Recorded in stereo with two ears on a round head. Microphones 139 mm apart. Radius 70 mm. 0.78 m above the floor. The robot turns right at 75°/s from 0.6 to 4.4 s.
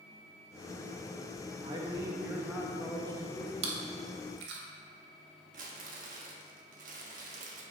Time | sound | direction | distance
1.6 | a man speaking | 30° right (ahead or behind) | 1.1 m
3.6 | chewing | 40° right (ahead or behind) | 1.3 m
5.5 | crumpling | 50° right (ahead or behind) | 1.2 m